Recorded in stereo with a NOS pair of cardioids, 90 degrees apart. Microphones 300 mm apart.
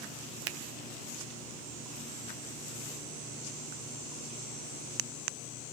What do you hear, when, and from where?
0.5 s a finger snap: 55° right, 0.6 m